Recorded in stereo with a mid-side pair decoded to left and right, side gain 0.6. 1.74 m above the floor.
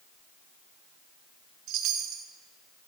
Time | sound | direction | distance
1.7 | a chime | 70° right | 1.3 m